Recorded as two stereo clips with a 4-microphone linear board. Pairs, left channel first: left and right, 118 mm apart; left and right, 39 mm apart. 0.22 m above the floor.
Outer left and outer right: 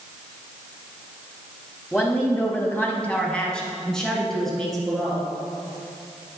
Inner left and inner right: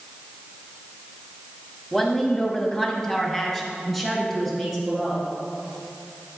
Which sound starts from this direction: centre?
A woman speaking, at 1.9 s.